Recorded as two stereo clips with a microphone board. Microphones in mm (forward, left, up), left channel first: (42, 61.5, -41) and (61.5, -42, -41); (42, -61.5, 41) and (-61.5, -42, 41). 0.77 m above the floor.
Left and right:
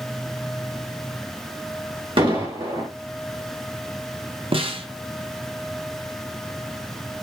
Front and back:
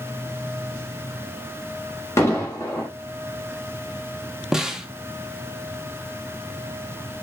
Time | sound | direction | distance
2.2 | an explosion | 70° right | 1.6 m
4.5 | a snare drum | 105° right | 0.6 m